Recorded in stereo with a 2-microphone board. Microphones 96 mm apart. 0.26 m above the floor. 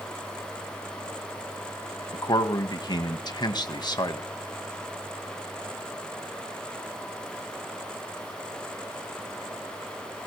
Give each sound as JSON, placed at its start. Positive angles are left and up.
{"t": 2.1, "sound": "a man speaking", "side_deg": 45, "distance_m": 1.5}